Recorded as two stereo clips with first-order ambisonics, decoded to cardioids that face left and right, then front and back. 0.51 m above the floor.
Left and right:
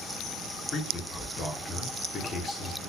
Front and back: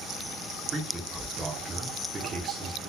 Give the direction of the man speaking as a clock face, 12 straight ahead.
8 o'clock.